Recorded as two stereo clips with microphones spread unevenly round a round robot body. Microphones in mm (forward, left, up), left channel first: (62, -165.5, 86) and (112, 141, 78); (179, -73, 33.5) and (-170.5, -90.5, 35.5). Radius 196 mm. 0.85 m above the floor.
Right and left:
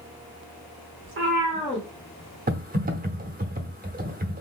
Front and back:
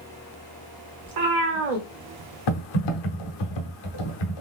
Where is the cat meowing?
135° left, 0.9 m; by 3.5 s 115° right, 1.4 m.